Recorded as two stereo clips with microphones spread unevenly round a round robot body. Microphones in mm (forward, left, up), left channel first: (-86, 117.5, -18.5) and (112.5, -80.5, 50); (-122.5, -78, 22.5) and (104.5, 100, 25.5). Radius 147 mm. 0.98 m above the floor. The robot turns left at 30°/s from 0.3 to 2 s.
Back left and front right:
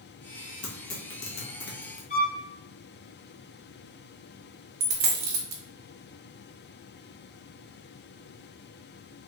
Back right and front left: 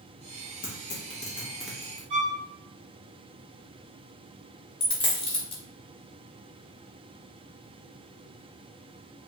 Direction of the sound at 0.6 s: 160° left.